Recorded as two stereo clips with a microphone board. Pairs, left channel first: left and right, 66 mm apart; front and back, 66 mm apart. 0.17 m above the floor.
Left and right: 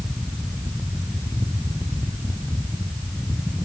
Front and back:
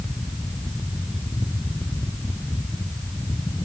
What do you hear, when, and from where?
Only background noise.